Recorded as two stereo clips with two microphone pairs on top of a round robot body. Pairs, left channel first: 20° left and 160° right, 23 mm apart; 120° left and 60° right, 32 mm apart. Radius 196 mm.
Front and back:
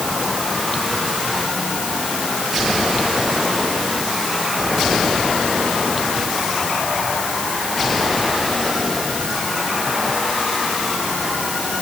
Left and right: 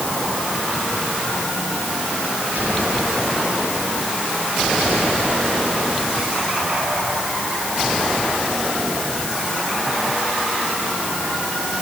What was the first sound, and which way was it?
Only background noise.